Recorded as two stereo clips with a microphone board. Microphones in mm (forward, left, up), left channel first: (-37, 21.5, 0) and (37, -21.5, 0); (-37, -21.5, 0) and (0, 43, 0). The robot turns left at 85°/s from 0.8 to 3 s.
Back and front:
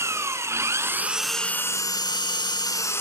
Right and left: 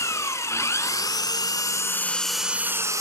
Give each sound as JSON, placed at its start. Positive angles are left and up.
{"t": 0.0, "sound": "an engine running", "azimuth_deg": -80, "distance_m": 1.0}